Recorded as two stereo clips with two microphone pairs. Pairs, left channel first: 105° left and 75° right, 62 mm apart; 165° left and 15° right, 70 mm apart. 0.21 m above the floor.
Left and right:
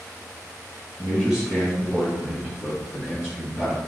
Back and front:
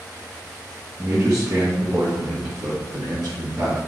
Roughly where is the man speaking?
Ahead.